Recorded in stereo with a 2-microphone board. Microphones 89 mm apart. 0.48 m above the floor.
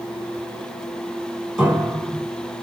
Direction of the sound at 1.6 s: 10° right (ahead or behind).